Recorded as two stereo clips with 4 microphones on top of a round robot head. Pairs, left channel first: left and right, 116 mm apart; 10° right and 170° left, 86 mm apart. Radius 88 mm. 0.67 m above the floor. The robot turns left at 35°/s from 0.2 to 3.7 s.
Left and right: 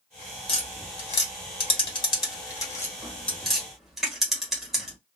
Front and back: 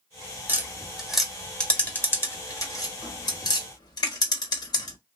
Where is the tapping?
110° left, 1.5 m; by 5.0 s 5° right, 1.5 m.